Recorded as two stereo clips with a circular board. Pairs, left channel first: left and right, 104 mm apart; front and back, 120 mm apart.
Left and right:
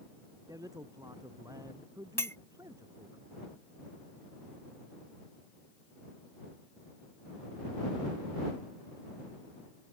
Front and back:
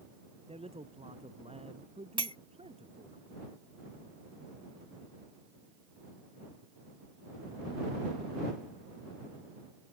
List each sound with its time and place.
0.5 s a man speaking: 145° right
2.2 s a clink: 150° left